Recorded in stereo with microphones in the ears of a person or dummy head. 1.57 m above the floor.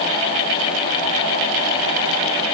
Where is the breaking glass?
No breaking glass in this recording.